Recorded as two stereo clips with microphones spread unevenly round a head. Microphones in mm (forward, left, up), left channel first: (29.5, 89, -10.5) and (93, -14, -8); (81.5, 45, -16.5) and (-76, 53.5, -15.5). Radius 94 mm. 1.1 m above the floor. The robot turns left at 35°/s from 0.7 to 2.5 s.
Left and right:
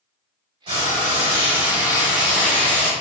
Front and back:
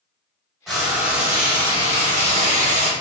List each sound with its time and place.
0.7 s frying: 95° right, 1.1 m; by 2.9 s 160° right, 1.1 m